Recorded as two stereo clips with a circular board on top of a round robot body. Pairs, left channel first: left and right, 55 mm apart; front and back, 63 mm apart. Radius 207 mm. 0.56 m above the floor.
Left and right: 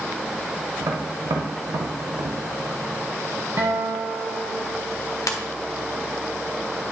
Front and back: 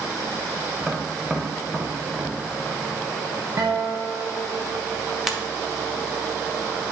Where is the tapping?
100° right, 0.6 m.